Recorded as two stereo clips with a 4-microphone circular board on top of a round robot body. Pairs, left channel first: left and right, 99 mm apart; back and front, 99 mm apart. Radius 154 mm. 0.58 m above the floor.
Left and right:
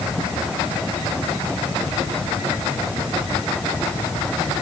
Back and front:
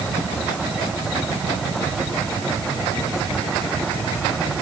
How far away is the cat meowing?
I don't hear a cat meowing.